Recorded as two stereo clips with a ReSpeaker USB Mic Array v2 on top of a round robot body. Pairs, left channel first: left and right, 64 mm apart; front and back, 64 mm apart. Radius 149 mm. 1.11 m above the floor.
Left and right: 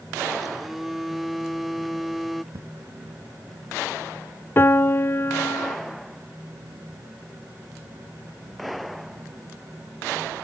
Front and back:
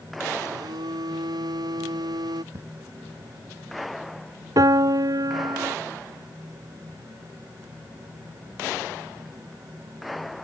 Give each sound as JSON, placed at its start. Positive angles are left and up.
{"t": 0.4, "sound": "a phone buzzing", "azimuth_deg": -175}
{"t": 2.5, "sound": "an explosion", "azimuth_deg": -130}
{"t": 4.6, "sound": "a piano", "azimuth_deg": 150}